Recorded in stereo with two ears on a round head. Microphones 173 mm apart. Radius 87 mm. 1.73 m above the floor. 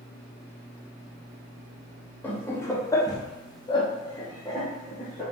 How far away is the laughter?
About 0.8 m.